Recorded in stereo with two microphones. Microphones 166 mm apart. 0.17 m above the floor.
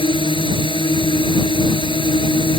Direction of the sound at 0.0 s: 30° left (ahead or behind).